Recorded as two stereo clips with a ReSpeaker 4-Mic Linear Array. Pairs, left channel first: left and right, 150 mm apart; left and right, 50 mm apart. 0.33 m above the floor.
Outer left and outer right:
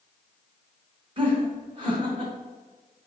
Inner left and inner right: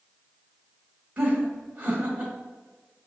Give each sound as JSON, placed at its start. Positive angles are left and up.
{"t": 1.2, "sound": "laughter", "side_deg": -35, "distance_m": 1.8}